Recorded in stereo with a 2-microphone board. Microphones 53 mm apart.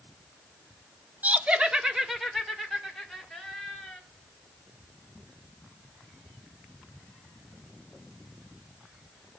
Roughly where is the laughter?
Right.